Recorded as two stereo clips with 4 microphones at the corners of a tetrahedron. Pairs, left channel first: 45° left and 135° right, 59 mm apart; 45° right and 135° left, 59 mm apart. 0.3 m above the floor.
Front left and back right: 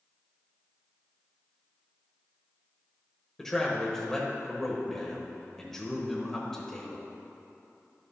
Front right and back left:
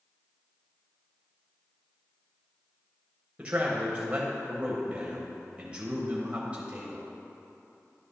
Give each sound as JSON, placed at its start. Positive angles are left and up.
{"t": 3.4, "sound": "a man speaking", "azimuth_deg": 120, "distance_m": 0.9}